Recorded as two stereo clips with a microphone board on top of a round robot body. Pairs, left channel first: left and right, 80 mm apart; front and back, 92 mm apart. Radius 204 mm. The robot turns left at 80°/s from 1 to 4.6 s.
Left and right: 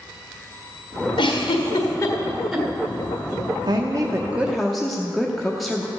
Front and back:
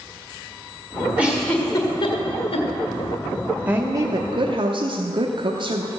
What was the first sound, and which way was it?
A giggle, 105° left.